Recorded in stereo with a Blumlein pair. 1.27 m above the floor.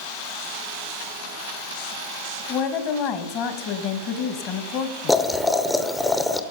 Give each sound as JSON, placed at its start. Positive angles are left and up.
{"t": 2.5, "sound": "a woman speaking", "azimuth_deg": 40, "distance_m": 1.1}
{"t": 5.1, "sound": "boiling", "azimuth_deg": 5, "distance_m": 0.6}